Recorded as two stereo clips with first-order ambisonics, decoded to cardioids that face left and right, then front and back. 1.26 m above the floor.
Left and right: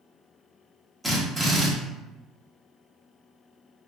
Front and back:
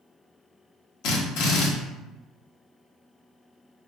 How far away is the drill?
About 0.9 m.